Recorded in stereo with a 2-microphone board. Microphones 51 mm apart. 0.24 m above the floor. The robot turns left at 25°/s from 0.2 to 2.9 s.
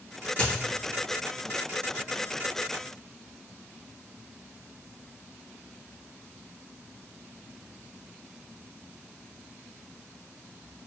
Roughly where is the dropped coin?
Left.